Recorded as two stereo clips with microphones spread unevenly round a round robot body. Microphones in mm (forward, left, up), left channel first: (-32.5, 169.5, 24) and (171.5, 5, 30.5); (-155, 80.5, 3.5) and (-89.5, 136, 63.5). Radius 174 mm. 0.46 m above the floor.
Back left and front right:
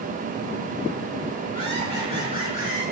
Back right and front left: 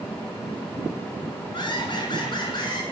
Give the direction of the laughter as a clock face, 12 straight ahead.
5 o'clock.